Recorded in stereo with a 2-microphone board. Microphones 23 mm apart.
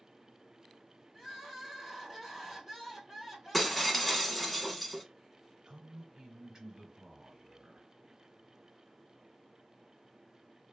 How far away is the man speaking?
About 1.2 m.